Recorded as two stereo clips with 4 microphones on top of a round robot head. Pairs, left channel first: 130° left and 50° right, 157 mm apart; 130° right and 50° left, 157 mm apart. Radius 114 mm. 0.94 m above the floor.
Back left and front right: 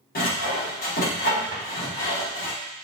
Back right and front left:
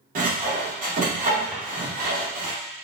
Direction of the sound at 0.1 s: 95° left.